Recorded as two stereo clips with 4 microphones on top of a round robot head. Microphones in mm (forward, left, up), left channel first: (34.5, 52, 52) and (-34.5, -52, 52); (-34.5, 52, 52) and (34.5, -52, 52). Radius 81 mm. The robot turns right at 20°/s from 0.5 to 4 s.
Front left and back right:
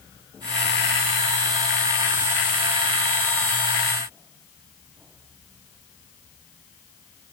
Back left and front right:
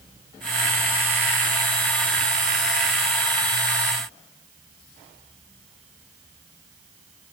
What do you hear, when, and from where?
Only background noise.